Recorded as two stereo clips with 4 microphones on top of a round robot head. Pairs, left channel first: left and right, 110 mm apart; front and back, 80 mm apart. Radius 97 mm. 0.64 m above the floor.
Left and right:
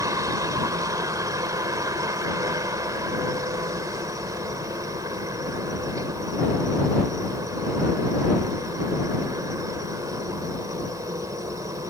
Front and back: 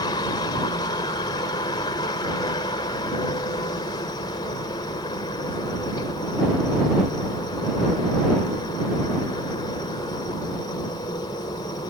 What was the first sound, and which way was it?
A helicopter, 35° right.